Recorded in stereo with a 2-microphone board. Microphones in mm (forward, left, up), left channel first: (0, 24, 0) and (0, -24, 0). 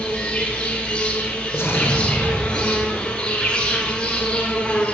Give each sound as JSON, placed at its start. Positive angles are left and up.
{"t": 0.0, "sound": "an insect", "side_deg": 20, "distance_m": 1.1}
{"t": 1.5, "sound": "an explosion", "side_deg": 65, "distance_m": 1.1}